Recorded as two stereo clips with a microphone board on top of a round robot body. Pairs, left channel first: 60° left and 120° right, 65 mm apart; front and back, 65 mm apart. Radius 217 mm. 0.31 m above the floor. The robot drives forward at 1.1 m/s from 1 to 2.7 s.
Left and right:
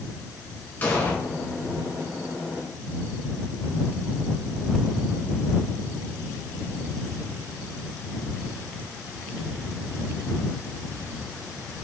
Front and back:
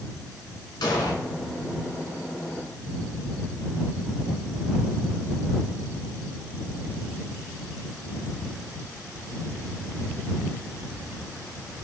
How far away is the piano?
No piano in this recording.